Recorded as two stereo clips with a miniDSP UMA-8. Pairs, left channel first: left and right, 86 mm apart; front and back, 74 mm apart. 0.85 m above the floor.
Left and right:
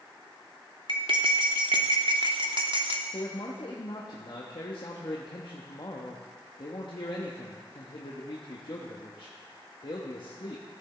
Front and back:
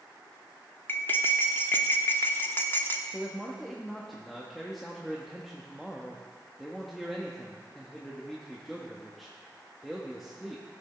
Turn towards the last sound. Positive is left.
turn(degrees=90)